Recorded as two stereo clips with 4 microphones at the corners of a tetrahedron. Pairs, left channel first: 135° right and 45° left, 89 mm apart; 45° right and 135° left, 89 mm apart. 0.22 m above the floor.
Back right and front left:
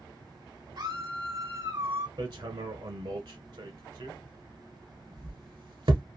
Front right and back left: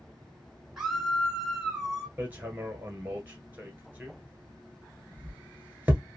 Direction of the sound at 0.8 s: 50° left.